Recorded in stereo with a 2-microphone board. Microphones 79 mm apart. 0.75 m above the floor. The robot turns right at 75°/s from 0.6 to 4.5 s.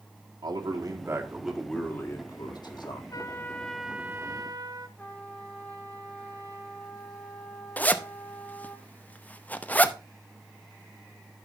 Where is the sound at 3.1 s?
130° left, 0.9 m; by 4.9 s 125° right, 0.9 m.